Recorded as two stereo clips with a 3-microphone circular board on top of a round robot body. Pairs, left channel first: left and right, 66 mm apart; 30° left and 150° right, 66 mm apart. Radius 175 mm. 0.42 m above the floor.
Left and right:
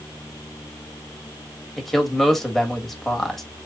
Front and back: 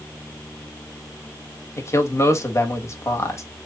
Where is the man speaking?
5° left, 1.5 m.